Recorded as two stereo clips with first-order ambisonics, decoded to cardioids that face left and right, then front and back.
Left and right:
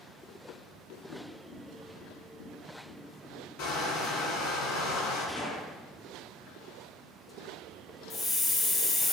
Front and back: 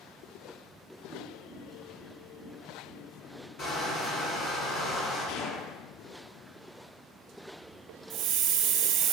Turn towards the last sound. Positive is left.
turn(degrees=160)